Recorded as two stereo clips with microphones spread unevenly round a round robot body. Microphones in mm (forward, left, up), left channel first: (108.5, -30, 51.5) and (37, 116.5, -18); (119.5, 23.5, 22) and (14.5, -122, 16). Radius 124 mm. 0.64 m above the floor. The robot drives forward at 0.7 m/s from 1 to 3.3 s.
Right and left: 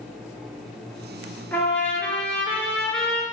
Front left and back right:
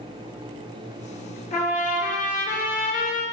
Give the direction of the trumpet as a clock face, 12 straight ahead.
12 o'clock.